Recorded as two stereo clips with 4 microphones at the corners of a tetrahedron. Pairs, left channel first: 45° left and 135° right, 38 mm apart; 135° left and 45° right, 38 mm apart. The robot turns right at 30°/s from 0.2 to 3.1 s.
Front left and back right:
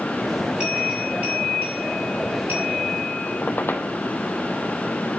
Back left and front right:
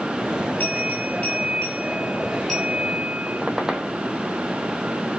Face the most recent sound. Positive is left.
turn(degrees=30)